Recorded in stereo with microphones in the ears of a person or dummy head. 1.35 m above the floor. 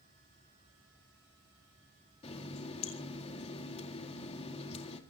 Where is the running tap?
30° left (ahead or behind), 2 m.